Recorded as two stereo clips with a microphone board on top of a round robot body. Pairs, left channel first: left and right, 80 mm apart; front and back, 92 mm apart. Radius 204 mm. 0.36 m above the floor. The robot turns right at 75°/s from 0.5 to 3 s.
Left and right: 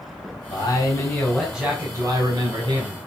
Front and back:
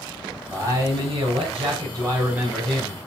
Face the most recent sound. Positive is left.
turn(degrees=-60)